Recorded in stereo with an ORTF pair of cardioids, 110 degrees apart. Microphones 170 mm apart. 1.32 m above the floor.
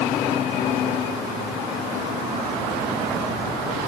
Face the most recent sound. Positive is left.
No sound to turn to.